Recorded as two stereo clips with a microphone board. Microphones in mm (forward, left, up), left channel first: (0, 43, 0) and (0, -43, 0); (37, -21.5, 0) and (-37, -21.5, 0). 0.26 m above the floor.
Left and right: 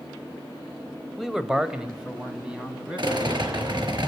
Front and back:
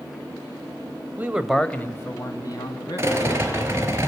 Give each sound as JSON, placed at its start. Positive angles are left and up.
{"t": 1.2, "sound": "a man speaking", "azimuth_deg": -170, "distance_m": 1.3}
{"t": 3.0, "sound": "a rattle", "azimuth_deg": -120, "distance_m": 4.5}